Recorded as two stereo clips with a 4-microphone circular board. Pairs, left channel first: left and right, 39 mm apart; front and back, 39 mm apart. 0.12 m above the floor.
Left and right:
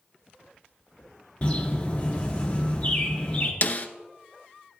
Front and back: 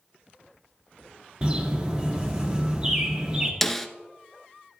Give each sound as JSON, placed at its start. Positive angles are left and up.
{"t": 1.4, "sound": "a bird", "azimuth_deg": 135, "distance_m": 1.6}
{"t": 3.6, "sound": "a snare drum", "azimuth_deg": 85, "distance_m": 0.7}